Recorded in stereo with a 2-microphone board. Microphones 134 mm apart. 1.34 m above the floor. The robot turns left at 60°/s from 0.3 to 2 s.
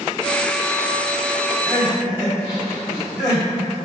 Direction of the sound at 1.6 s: 45° left (ahead or behind).